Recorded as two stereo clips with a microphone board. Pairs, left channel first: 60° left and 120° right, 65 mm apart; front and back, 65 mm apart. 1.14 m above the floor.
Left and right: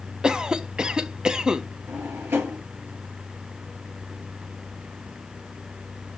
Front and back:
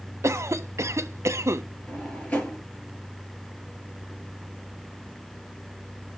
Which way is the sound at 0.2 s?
165° left.